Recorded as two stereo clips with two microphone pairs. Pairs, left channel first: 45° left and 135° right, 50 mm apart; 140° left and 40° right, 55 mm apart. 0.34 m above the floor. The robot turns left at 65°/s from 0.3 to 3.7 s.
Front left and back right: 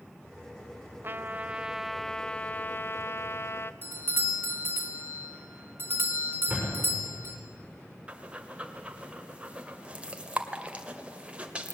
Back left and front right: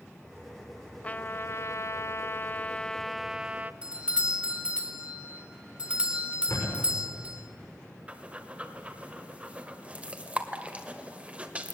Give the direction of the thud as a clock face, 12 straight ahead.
7 o'clock.